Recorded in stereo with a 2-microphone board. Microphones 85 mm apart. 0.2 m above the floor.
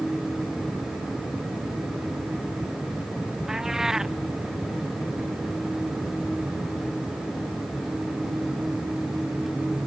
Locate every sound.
3.5 s a cat meowing: 5° right (ahead or behind)